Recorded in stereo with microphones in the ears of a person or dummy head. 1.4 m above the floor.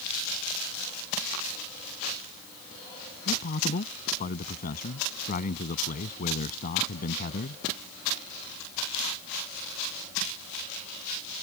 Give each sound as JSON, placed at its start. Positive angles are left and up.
{"t": 3.2, "sound": "a man speaking", "side_deg": 40}